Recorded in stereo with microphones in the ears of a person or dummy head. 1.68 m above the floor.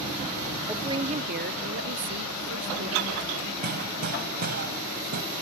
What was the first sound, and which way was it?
A woman speaking, 10° right (ahead or behind).